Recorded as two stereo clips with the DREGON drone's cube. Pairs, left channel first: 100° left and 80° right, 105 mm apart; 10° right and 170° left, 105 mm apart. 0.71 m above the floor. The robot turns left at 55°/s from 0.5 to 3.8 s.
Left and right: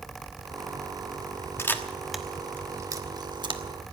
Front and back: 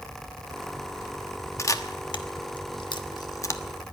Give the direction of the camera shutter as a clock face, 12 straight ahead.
11 o'clock.